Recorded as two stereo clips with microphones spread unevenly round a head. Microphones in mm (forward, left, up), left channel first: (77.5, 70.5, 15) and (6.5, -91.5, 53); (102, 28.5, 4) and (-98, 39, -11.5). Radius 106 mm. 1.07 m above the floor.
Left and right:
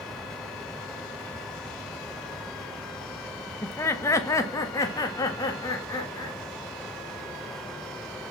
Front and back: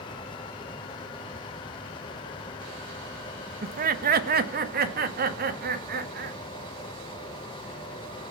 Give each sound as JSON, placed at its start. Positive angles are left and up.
{"t": 3.6, "sound": "laughter", "azimuth_deg": 135, "distance_m": 1.3}